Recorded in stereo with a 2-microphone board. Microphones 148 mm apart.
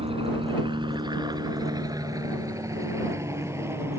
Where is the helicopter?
40° right (ahead or behind); by 4.0 s 15° right (ahead or behind).